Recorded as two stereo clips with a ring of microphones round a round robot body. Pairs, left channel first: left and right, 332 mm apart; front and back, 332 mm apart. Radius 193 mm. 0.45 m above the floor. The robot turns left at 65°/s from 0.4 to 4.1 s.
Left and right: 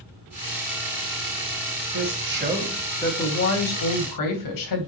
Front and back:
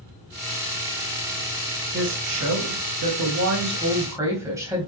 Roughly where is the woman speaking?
Behind right.